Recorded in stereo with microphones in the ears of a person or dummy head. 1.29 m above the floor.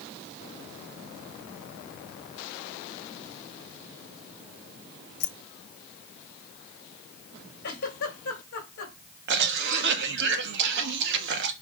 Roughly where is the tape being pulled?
No tape being pulled in this recording.